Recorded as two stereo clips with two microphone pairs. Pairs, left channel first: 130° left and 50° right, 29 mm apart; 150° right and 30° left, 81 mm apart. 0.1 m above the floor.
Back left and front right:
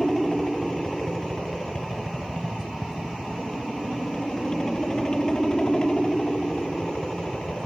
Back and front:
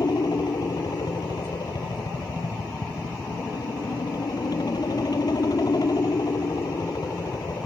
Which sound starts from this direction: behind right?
A helicopter, at 0.0 s.